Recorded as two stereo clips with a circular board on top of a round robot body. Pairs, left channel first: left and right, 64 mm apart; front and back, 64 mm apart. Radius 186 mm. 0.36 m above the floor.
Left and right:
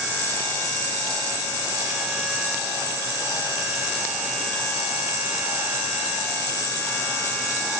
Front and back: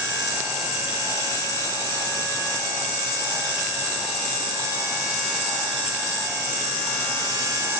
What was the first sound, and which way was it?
Only background noise.